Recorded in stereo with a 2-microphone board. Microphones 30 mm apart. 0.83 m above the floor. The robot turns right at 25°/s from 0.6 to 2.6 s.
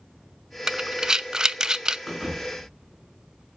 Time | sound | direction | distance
0.7 | breathing | 20° right (ahead or behind) | 0.6 m
2.1 | a thud | centre (ahead or behind) | 3.5 m